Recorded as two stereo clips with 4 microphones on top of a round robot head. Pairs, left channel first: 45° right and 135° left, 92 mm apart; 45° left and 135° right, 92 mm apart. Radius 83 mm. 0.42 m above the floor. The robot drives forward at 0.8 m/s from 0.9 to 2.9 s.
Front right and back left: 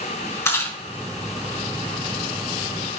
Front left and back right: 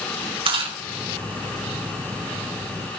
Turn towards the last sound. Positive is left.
turn(degrees=-130)